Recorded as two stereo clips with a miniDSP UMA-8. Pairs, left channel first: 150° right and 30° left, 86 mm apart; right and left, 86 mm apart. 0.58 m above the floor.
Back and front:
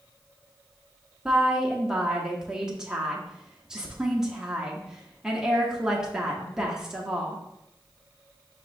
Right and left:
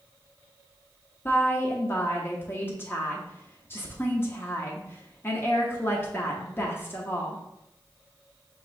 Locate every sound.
1.2 s a woman speaking: 45° right, 0.7 m